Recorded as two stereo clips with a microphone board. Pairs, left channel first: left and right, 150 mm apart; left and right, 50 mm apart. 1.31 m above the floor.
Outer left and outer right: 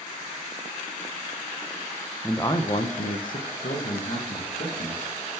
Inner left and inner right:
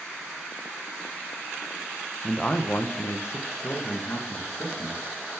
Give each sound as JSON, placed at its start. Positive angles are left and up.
{"t": 2.2, "sound": "a man speaking", "side_deg": 10, "distance_m": 0.7}